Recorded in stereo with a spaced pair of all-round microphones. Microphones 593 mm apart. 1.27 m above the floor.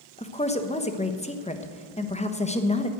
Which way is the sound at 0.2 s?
10° left (ahead or behind).